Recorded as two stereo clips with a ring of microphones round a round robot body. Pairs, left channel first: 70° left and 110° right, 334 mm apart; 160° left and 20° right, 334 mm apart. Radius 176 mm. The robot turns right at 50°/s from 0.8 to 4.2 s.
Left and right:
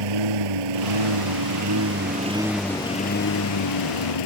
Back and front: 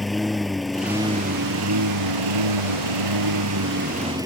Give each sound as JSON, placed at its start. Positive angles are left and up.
{"t": 0.0, "sound": "a lawn mower", "azimuth_deg": -110}